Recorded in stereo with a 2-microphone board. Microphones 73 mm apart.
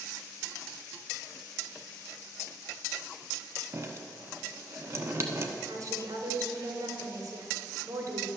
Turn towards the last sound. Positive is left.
turn(degrees=-55)  # may be behind; listen again after turning